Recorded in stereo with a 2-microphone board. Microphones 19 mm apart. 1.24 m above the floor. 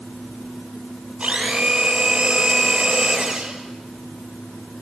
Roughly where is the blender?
Right.